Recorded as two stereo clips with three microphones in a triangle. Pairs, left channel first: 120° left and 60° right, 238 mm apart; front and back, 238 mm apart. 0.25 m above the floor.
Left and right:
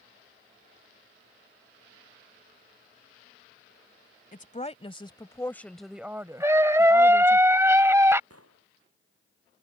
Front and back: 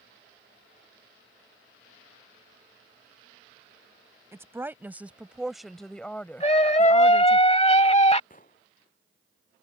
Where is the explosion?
55° right.